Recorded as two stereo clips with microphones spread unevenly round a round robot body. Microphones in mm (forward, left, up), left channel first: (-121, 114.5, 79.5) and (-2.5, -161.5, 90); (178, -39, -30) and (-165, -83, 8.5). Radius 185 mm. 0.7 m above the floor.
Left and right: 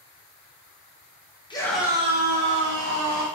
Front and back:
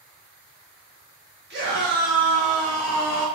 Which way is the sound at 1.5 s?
160° left.